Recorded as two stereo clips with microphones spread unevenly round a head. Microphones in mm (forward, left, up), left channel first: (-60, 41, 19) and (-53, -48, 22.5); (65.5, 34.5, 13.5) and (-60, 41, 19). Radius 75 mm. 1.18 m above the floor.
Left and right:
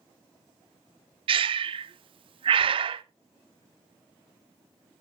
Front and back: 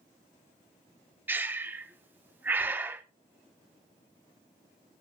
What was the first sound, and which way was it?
Breathing, 105° right.